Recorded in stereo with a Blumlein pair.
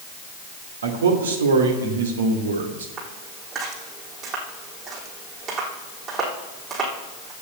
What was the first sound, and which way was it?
A man speaking, 65° right.